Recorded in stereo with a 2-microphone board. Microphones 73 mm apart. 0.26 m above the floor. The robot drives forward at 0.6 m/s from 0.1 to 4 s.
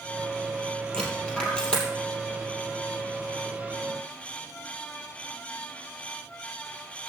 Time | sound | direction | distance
0.9 | a dropped coin | 15° left (ahead or behind) | 3 m